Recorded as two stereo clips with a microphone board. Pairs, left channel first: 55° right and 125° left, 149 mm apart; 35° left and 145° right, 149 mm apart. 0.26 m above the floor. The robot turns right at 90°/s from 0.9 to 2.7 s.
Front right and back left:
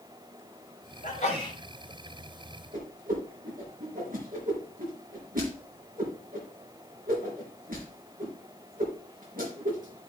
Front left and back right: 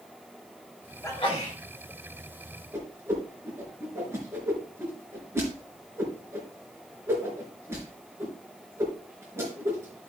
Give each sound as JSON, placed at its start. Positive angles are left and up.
{"t": 1.0, "sound": "a sneeze", "azimuth_deg": -35, "distance_m": 3.5}
{"t": 2.7, "sound": "a whoosh", "azimuth_deg": 140, "distance_m": 4.0}